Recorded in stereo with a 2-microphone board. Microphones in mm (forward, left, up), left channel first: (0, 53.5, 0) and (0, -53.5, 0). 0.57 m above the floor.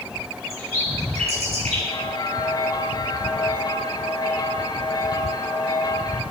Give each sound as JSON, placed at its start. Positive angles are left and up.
{"t": 0.5, "sound": "a bird", "side_deg": -75, "distance_m": 6.5}
{"t": 1.9, "sound": "a bell", "side_deg": 35, "distance_m": 2.0}